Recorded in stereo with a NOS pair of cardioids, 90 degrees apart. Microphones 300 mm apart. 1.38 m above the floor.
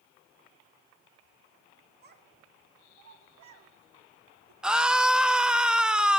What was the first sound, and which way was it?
A child speaking, 35° right.